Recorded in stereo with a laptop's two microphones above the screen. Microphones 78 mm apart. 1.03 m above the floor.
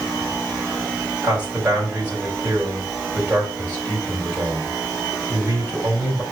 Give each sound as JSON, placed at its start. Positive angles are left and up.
{"t": 1.2, "sound": "a man speaking", "side_deg": -20, "distance_m": 5.0}